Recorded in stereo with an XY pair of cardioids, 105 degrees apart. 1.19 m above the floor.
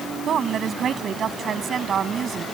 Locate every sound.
0.3 s a woman speaking: 55° right; by 2.5 s 45° right